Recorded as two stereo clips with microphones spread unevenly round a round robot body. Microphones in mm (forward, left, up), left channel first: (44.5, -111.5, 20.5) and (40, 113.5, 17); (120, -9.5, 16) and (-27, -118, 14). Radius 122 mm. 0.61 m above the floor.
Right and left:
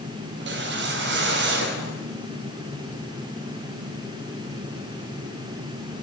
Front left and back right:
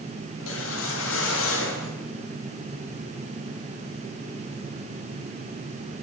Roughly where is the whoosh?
Ahead left.